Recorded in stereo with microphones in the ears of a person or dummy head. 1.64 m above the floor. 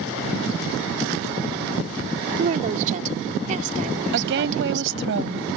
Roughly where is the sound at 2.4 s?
Right.